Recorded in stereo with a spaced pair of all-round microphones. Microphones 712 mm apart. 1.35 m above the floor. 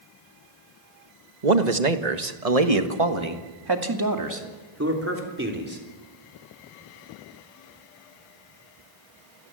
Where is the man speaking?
85° right, 1.6 m; by 5.8 s 15° right (ahead or behind), 4 m.